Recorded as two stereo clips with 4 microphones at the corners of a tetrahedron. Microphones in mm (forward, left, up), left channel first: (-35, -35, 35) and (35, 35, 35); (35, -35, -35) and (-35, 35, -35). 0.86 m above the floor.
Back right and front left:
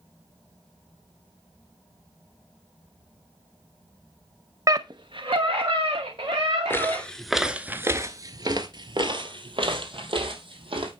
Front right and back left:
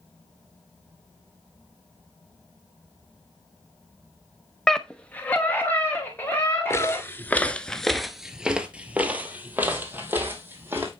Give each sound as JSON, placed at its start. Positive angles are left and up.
{"t": 4.7, "sound": "a scream", "azimuth_deg": 40, "distance_m": 0.5}
{"t": 6.7, "sound": "footsteps", "azimuth_deg": -90, "distance_m": 0.9}